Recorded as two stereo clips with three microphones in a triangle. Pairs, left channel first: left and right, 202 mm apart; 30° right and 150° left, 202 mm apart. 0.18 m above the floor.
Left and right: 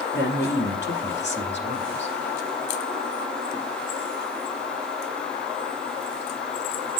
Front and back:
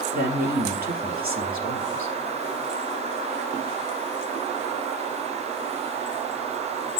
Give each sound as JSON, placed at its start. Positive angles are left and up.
{"t": 0.1, "sound": "a man speaking", "azimuth_deg": 110, "distance_m": 3.0}